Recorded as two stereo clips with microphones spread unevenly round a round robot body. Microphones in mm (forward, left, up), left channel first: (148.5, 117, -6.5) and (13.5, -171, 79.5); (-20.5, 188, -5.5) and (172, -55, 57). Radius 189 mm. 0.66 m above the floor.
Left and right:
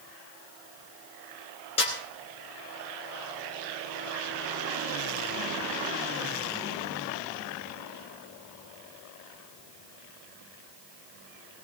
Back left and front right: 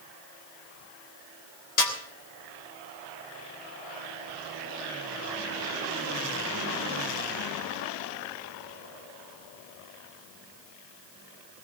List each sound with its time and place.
1.8 s a snare drum: 135° left, 3 m